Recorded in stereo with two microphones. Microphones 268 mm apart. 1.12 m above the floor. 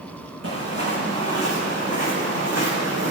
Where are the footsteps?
60° right (ahead or behind), 4.5 m; by 3.1 s 70° right (ahead or behind), 3 m.